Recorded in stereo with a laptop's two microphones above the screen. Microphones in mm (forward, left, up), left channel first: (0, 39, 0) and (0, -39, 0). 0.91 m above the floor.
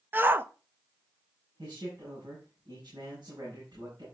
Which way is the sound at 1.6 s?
80° right.